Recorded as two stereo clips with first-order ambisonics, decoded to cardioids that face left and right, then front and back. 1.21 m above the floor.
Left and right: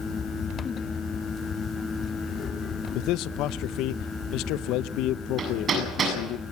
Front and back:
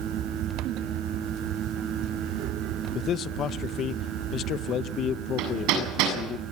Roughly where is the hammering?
Behind right.